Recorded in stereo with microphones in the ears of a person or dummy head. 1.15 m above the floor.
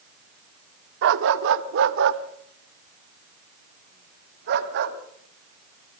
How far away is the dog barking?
About 1.0 m.